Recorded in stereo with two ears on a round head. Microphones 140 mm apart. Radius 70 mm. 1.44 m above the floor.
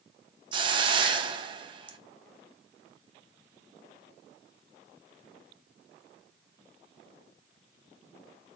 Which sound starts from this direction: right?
A hiss, at 0.5 s.